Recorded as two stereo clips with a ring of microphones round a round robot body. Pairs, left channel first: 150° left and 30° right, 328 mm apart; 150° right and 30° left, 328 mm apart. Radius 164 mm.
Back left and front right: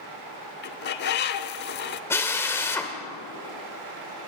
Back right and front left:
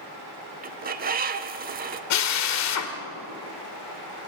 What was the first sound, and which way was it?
A bird, 95° left.